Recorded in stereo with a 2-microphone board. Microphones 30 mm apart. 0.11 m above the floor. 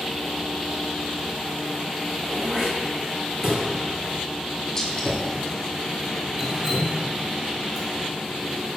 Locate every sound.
2.2 s throat clearing: 20° right (ahead or behind), 1.8 m
4.8 s a gunshot: 20° left (ahead or behind), 0.8 m
6.4 s dripping: 15° right (ahead or behind), 1.0 m